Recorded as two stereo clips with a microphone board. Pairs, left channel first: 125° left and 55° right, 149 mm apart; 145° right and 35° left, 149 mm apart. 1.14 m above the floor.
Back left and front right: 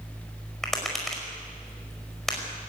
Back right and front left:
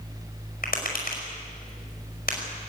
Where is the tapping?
145° right, 5 m.